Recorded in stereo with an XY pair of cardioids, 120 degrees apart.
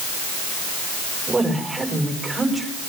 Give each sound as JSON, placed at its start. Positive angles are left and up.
{"t": 1.3, "sound": "a woman speaking", "azimuth_deg": -15, "distance_m": 5.0}